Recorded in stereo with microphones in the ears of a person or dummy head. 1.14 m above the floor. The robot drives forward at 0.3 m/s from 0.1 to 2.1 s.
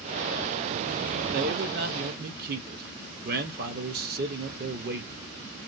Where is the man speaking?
45° right (ahead or behind), 0.5 m.